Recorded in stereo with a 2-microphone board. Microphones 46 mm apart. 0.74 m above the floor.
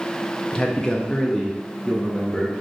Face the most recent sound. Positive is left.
turn(degrees=10)  # may be behind; listen again after turning